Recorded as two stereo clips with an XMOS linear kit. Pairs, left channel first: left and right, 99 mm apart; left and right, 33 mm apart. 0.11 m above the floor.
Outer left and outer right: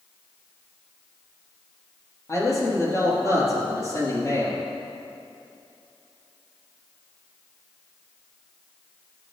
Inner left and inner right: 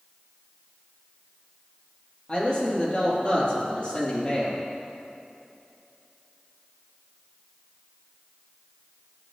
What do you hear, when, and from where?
2.3 s a man speaking: 35° left (ahead or behind), 4 m